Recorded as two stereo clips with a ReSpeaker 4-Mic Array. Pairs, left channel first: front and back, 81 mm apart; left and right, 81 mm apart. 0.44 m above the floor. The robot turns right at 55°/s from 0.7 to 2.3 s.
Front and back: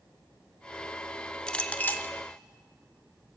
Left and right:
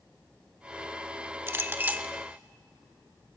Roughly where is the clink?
Right.